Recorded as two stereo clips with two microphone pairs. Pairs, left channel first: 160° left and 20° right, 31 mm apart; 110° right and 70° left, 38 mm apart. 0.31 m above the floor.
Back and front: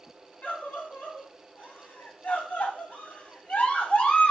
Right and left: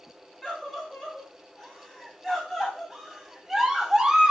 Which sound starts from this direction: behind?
A scream, at 0.4 s.